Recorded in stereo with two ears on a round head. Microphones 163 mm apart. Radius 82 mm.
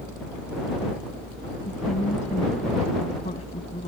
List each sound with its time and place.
1.6 s a woman speaking: 40° left (ahead or behind); by 3.9 s 30° left (ahead or behind)